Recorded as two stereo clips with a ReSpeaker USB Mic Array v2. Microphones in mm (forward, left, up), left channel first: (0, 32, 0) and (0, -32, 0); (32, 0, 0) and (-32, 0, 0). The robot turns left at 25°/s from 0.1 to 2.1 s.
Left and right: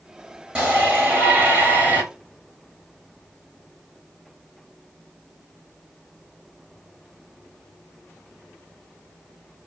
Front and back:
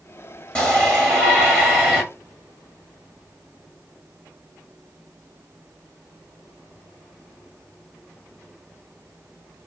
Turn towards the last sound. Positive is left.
turn(degrees=-75)